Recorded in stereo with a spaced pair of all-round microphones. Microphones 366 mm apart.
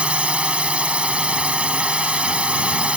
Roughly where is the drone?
Centre.